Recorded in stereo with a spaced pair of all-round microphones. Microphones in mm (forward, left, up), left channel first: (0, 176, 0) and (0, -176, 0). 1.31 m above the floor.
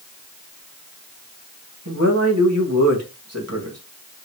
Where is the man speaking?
45° right (ahead or behind), 2.0 m.